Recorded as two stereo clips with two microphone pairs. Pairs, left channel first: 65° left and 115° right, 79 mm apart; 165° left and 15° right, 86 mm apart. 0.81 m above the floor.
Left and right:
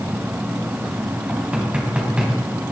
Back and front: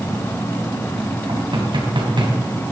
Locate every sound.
1.3 s knocking: 35° right, 4 m